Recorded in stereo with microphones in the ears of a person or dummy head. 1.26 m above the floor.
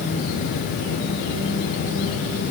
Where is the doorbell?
I don't hear a doorbell.